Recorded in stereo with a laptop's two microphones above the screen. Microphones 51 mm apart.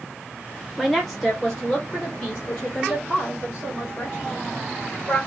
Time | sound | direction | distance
0.8 | a woman speaking | 5° right (ahead or behind) | 0.7 m